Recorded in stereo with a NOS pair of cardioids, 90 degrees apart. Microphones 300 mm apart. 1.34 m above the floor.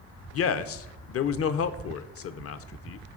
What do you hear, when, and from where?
0.3 s a man speaking: 50° left, 0.6 m